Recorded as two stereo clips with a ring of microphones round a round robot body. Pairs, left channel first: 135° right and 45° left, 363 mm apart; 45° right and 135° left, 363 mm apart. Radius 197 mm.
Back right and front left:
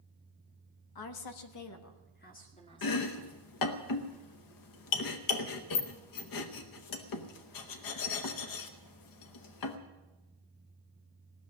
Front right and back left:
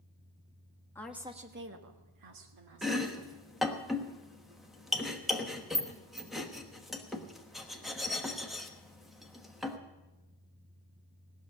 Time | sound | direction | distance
0.9 | a woman speaking | 130° right | 1.3 m
2.8 | chopping | 135° right | 1.1 m